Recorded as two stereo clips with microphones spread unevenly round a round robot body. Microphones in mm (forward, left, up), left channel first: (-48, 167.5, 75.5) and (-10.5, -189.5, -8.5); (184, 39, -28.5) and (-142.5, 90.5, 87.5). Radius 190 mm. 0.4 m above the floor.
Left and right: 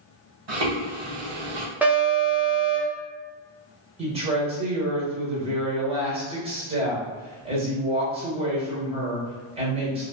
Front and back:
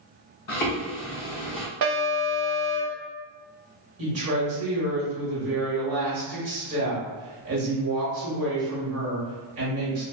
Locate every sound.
0.5 s footsteps: 55° right, 1.6 m
1.8 s an alarm: 160° right, 0.7 m
4.0 s a woman speaking: 135° right, 1.2 m